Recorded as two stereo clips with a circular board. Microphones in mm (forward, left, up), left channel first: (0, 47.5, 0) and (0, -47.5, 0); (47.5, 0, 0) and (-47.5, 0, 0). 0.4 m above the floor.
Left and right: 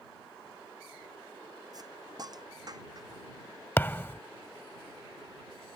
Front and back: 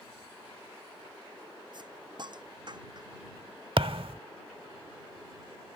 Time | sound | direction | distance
1.7 | a hiss | 140° right | ?
3.8 | a thud | 160° left | ?